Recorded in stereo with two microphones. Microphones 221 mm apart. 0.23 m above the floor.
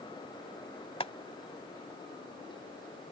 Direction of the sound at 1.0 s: 25° left (ahead or behind).